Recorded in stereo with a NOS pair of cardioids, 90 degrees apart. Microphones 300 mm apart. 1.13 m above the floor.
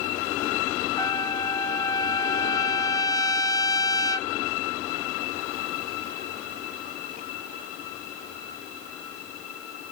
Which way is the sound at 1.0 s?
10° left.